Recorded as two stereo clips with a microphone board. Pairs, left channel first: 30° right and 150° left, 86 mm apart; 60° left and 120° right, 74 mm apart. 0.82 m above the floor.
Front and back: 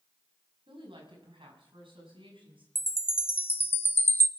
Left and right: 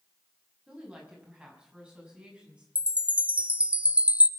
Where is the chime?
65° right, 0.6 m.